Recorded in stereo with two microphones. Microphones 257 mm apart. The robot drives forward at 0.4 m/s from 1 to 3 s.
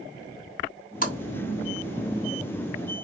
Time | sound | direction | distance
1.0 | a splash | 35° left (ahead or behind) | 1.5 m